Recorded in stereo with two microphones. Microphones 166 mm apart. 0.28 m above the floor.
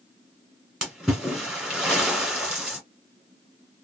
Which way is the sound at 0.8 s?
5° right (ahead or behind).